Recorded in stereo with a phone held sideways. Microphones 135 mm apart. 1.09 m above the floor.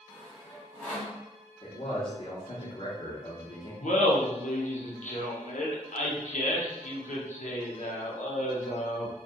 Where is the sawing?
10° left (ahead or behind), 1.3 m.